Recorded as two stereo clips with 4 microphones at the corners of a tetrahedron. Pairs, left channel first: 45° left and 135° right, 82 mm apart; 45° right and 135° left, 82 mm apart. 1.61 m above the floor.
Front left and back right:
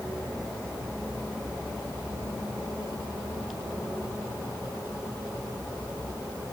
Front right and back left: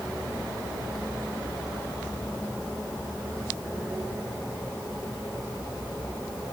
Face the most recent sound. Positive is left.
No sound to turn to.